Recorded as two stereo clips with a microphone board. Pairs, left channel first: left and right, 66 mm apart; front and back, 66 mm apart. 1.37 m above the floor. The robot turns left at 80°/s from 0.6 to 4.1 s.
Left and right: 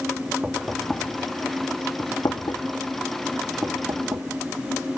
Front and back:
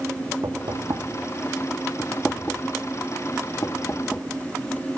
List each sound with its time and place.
0.4 s knocking: 155° right, 1.4 m; by 4.2 s 75° right, 1.4 m